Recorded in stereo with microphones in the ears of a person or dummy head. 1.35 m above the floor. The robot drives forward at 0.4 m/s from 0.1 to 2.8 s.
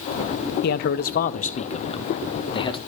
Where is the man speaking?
60° left (ahead or behind), 0.7 m; by 2.8 s 30° left (ahead or behind), 1.4 m.